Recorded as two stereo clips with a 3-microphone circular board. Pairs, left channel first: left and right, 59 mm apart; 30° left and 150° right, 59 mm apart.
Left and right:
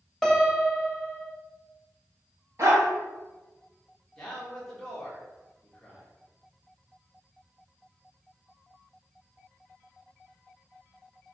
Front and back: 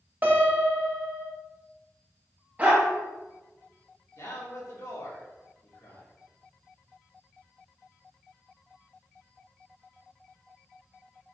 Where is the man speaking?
10° left, 1.6 m.